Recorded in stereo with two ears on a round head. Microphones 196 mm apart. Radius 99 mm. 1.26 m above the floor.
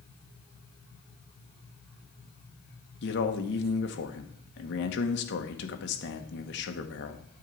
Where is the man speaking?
50° left (ahead or behind), 1.2 m.